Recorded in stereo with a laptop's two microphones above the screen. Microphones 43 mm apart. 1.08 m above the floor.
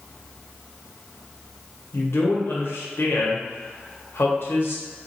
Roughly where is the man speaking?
Left.